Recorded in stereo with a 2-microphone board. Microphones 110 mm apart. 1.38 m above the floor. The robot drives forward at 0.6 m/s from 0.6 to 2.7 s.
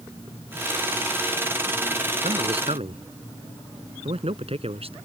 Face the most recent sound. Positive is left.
turn(degrees=-60)  # may be behind; listen again after turning